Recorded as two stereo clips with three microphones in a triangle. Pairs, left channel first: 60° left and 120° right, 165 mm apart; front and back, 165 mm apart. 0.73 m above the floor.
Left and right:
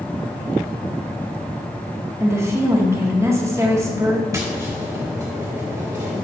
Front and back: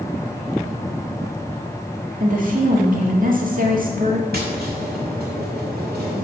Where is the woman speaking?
170° left, 1.6 m.